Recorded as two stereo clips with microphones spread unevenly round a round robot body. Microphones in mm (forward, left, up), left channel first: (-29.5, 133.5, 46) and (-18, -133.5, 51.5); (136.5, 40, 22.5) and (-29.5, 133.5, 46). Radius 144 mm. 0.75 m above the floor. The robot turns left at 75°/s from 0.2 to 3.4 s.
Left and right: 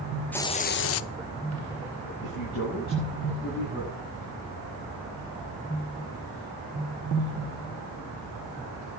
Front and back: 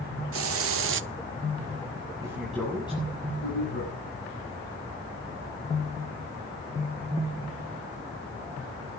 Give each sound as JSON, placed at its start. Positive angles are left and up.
{"t": 0.3, "sound": "a hiss", "azimuth_deg": 175, "distance_m": 0.6}
{"t": 2.2, "sound": "a man speaking", "azimuth_deg": 85, "distance_m": 7.0}